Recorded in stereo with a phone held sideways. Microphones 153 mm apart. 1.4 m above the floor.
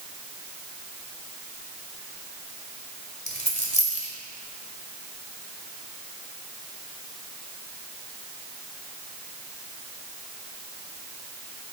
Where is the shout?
I don't hear a shout.